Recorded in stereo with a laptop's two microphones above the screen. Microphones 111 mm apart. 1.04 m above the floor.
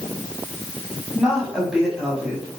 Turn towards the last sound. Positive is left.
turn(degrees=-10)  # may be behind; listen again after turning